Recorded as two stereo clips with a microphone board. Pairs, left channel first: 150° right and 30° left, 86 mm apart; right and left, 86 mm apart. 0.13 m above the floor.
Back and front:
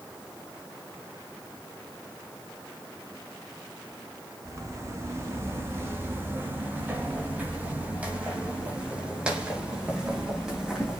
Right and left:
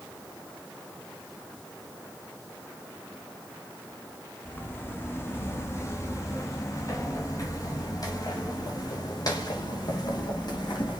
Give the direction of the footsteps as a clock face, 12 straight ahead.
1 o'clock.